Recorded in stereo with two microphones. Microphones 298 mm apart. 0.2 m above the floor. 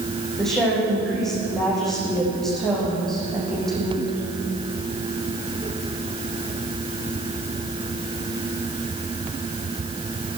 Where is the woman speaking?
Centre (ahead or behind), 10 m.